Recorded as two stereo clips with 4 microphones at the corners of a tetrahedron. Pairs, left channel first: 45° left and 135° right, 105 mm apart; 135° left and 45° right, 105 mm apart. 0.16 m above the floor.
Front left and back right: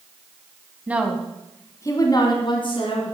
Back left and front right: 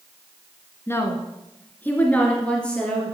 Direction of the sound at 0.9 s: 170° left.